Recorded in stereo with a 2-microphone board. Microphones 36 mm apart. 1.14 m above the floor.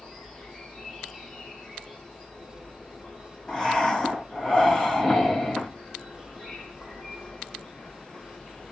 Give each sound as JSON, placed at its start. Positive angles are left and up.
{"t": 0.0, "sound": "an insect", "side_deg": 10, "distance_m": 1.7}
{"t": 3.5, "sound": "breathing", "side_deg": 10, "distance_m": 1.7}